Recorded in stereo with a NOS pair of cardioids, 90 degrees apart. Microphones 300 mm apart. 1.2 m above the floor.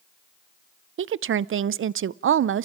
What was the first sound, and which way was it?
A woman speaking, 45° right.